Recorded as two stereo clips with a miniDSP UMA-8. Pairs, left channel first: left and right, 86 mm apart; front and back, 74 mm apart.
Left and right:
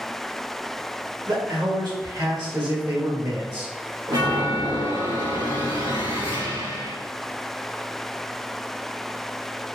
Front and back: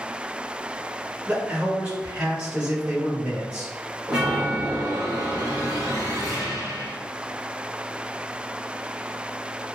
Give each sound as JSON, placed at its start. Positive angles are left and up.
{"t": 1.3, "sound": "a man speaking", "azimuth_deg": -110, "distance_m": 1.4}
{"t": 4.1, "sound": "a chime", "azimuth_deg": -105, "distance_m": 1.4}